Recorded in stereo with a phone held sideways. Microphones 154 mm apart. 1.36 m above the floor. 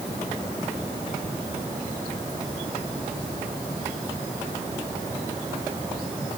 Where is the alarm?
I don't hear an alarm.